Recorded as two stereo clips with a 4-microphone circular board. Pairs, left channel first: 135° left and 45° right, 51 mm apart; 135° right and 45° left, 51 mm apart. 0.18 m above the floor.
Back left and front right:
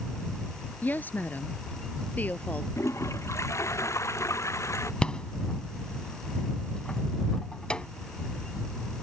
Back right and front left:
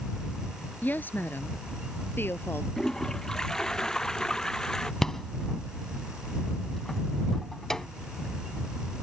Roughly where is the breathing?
No breathing in this recording.